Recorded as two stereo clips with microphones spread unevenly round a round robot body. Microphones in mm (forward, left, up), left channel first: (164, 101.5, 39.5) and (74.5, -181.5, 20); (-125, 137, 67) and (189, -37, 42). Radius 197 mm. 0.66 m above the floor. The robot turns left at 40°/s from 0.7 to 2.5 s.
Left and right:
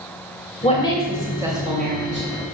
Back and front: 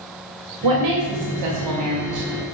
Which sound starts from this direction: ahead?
A woman speaking, at 0.6 s.